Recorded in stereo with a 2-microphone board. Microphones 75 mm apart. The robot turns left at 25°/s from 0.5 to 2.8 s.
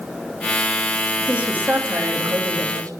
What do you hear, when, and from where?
1.2 s a woman speaking: 15° right, 2.5 m; by 2.9 s 55° right, 2.5 m